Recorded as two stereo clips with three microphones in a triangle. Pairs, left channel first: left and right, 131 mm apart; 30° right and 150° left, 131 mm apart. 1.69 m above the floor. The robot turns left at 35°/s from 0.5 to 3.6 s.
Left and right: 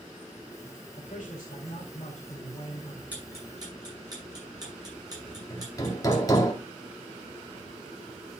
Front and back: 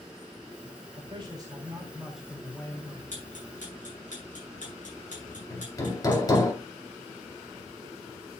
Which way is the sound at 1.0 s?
105° left.